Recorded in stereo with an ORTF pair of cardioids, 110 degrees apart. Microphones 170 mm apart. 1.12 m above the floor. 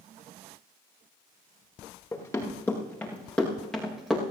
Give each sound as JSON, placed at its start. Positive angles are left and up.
{"t": 2.1, "sound": "running footsteps", "azimuth_deg": 15, "distance_m": 7.5}